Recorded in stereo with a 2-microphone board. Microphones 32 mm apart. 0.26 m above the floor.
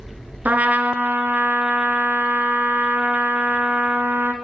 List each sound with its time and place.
0.5 s a trumpet: 55° right (ahead or behind), 1.0 m